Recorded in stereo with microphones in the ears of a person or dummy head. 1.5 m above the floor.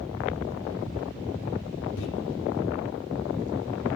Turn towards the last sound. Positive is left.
turn(degrees=75)  # may be behind; listen again after turning